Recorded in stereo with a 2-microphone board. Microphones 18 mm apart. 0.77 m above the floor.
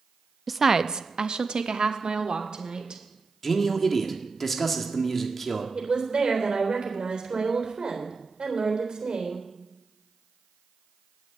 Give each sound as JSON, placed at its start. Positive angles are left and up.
{"t": 0.5, "sound": "a woman speaking", "side_deg": -5, "distance_m": 0.5}
{"t": 3.4, "sound": "a man speaking", "side_deg": 15, "distance_m": 1.8}
{"t": 5.8, "sound": "a woman speaking", "side_deg": -65, "distance_m": 3.5}